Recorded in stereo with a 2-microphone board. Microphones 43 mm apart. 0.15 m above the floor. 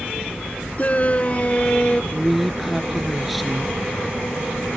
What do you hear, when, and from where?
0.8 s a shout: 35° left (ahead or behind); by 2.0 s 25° left (ahead or behind)
2.1 s a woman speaking: 5° right (ahead or behind)